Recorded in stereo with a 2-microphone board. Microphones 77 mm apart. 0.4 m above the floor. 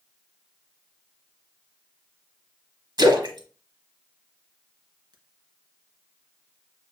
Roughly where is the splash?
Right.